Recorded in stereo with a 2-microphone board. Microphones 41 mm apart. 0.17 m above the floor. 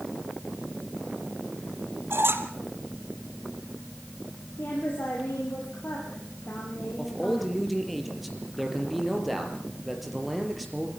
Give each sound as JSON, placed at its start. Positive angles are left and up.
{"t": 2.1, "sound": "a squeak", "side_deg": -80, "distance_m": 2.0}
{"t": 4.6, "sound": "a woman speaking", "side_deg": 55, "distance_m": 6.5}
{"t": 7.0, "sound": "a man speaking", "side_deg": 0, "distance_m": 5.0}